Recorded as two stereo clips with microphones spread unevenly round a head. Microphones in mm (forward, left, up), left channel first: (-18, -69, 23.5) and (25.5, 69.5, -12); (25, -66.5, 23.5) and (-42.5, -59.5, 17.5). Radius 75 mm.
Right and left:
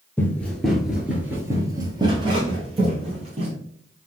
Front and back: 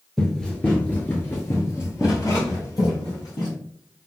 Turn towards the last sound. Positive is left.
turn(degrees=20)